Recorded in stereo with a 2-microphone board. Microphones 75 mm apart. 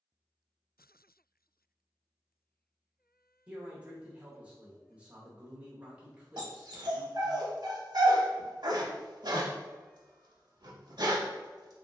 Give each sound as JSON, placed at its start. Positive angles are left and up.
{"t": 3.5, "sound": "a man speaking", "side_deg": -15, "distance_m": 0.8}
{"t": 6.4, "sound": "a dog barking", "side_deg": -70, "distance_m": 0.7}